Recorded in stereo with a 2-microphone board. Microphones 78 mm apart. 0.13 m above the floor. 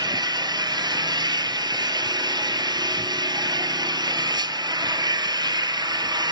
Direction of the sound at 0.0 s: 65° right (ahead or behind).